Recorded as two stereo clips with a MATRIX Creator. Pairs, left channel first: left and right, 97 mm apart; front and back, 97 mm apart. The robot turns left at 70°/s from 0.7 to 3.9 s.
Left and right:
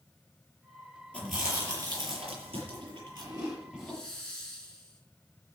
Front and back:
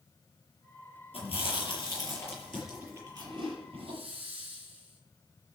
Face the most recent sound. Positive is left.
turn(degrees=175)